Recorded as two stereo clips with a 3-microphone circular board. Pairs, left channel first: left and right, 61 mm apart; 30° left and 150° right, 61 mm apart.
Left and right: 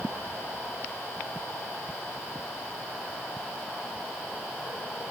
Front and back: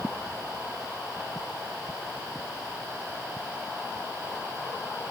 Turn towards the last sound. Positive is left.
No sound to turn to.